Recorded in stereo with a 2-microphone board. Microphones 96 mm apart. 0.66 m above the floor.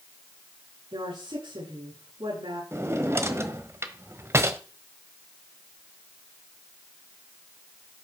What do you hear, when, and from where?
0.9 s a woman speaking: 70° right (ahead or behind), 9.5 m
2.7 s a drawer: 30° right (ahead or behind), 1.2 m